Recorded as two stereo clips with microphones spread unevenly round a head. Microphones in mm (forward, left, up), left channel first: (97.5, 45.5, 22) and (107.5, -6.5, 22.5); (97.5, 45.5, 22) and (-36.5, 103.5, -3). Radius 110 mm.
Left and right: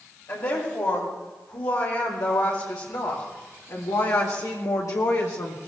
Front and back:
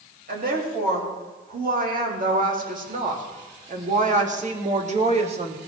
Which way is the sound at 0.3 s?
140° left.